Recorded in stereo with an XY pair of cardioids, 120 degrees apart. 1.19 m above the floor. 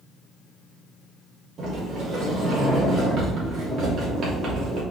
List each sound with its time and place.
1.6 s a sliding door: 55° right, 3 m